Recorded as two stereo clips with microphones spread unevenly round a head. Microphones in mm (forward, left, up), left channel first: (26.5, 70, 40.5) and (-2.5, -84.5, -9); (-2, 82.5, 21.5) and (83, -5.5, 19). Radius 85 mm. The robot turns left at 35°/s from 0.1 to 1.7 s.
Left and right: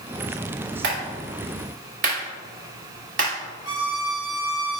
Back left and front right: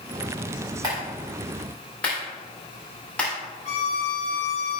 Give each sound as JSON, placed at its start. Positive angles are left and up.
{"t": 0.8, "sound": "a clap", "azimuth_deg": -110, "distance_m": 3.5}
{"t": 3.6, "sound": "a violin", "azimuth_deg": -170, "distance_m": 2.0}